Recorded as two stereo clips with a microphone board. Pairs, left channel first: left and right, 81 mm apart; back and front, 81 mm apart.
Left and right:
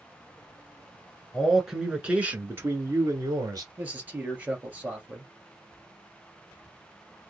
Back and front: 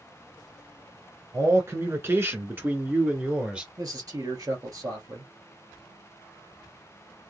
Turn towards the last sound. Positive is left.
turn(degrees=-25)